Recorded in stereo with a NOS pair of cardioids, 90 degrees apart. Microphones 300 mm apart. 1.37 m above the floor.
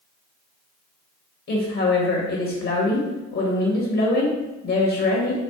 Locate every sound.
1.5 s a woman speaking: 45° left, 1.3 m